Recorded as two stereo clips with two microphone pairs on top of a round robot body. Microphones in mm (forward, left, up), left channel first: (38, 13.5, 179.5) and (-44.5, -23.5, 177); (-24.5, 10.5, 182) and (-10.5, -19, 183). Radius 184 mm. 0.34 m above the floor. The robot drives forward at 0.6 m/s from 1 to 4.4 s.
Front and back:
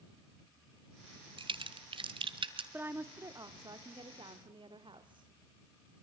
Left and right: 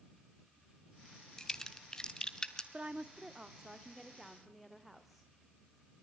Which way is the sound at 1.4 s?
170° right.